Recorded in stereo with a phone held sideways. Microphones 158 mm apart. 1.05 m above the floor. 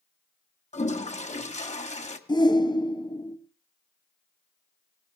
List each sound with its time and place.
0.7 s a toilet flushing: 45° left (ahead or behind), 1.3 m
2.3 s a shout: 25° left (ahead or behind), 1.4 m